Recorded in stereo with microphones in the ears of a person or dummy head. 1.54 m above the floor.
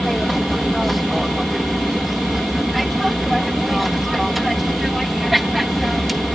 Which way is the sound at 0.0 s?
Centre (ahead or behind).